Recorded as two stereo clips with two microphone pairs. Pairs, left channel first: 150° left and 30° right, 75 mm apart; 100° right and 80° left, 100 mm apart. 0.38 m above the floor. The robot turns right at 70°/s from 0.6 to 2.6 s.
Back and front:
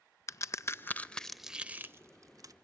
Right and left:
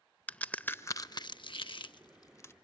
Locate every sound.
0.3 s a crack: 175° right, 0.5 m; by 2.5 s 40° right, 0.5 m